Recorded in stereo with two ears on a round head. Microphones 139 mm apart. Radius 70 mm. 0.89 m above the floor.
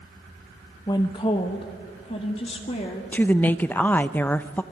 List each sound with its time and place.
0.9 s a woman speaking: 25° left (ahead or behind), 0.9 m; by 3.0 s 40° left (ahead or behind), 2 m
3.1 s a woman speaking: 10° left (ahead or behind), 0.5 m